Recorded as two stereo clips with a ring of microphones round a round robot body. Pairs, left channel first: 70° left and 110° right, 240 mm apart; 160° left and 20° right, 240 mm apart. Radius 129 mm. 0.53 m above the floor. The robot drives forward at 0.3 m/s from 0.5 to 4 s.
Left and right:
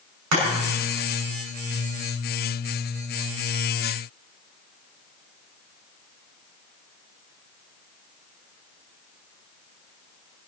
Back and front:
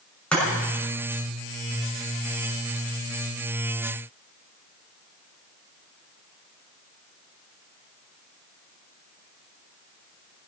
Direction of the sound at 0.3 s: 115° right.